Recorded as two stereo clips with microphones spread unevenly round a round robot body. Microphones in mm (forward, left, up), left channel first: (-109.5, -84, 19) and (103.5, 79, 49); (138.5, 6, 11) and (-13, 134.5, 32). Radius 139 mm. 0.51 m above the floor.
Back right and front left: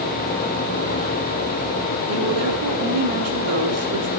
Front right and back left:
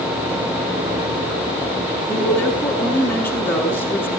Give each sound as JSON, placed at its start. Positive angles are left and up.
{"t": 2.1, "sound": "a woman speaking", "azimuth_deg": 40, "distance_m": 7.5}